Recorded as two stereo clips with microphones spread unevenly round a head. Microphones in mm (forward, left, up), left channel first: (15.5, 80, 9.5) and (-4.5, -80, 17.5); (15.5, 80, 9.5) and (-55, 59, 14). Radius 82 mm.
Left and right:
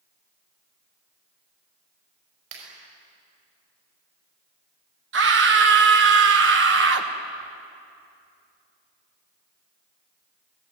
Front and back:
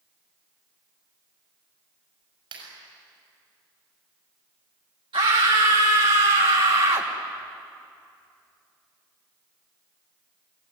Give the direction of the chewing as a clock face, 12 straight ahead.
I don't hear chewing.